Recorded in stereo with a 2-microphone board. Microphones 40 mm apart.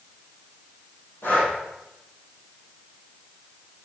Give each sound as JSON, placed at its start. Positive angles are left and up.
{"t": 1.2, "sound": "breathing", "side_deg": 55, "distance_m": 4.0}